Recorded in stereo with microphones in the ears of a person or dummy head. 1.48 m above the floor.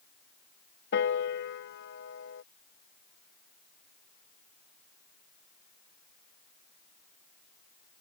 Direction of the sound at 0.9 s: 65° left (ahead or behind).